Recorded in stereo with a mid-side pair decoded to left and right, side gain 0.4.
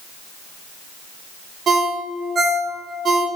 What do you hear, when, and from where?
1.7 s a ringtone: 55° right, 1.0 m